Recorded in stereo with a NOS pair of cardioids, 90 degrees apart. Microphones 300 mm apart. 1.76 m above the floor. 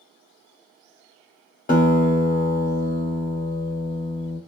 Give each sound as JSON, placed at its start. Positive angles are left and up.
{"t": 1.7, "sound": "a guitar", "azimuth_deg": 25, "distance_m": 1.7}